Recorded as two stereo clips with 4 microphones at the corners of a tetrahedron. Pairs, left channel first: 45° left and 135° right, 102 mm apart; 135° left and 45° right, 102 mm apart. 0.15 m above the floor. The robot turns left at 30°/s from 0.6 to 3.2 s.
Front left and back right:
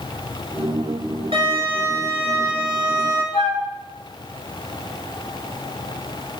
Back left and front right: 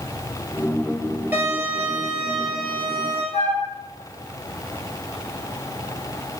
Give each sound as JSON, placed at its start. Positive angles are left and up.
{"t": 1.3, "sound": "a violin", "azimuth_deg": -115, "distance_m": 1.4}
{"t": 3.3, "sound": "a flute", "azimuth_deg": 125, "distance_m": 1.6}